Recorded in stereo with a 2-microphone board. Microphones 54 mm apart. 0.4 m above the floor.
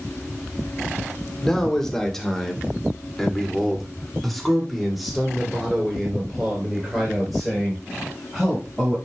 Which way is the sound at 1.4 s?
10° left (ahead or behind).